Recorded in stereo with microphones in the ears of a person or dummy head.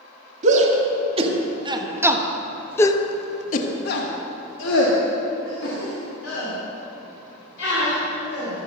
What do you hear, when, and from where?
0.4 s a shout: 40° right (ahead or behind), 2 m; by 8.7 s 75° left (ahead or behind), 4.5 m